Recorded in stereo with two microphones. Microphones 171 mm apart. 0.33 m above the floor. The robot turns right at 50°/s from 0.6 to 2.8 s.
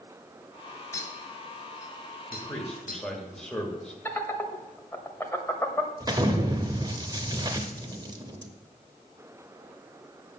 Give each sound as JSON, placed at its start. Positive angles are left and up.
{"t": 0.9, "sound": "a clink", "side_deg": 15, "distance_m": 1.3}
{"t": 2.3, "sound": "a man speaking", "side_deg": 10, "distance_m": 1.5}
{"t": 4.0, "sound": "laughter", "side_deg": 15, "distance_m": 1.1}
{"t": 6.0, "sound": "an explosion", "side_deg": -25, "distance_m": 0.7}